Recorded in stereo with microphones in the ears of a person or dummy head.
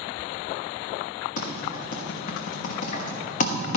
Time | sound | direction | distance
1.4 | typing on a keyboard | 55° left (ahead or behind) | 1.3 m